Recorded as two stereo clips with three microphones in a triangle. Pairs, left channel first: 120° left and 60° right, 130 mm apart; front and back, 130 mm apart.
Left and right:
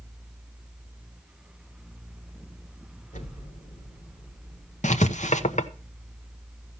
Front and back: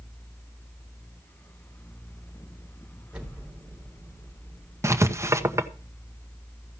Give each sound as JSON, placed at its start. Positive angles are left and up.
{"t": 3.1, "sound": "an explosion", "azimuth_deg": 100, "distance_m": 3.0}
{"t": 4.8, "sound": "writing", "azimuth_deg": 115, "distance_m": 0.9}